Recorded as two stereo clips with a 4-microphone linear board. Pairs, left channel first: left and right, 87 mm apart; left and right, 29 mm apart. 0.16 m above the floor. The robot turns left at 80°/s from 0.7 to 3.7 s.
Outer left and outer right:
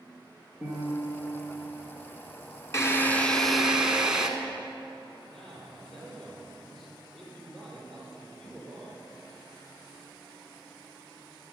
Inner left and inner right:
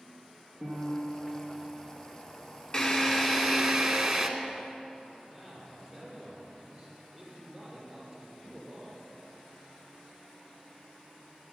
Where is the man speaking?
Centre (ahead or behind), 6 m.